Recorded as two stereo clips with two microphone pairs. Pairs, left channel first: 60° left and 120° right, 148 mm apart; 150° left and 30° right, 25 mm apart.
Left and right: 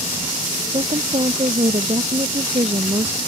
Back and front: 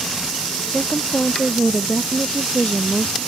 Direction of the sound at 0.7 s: 170° right.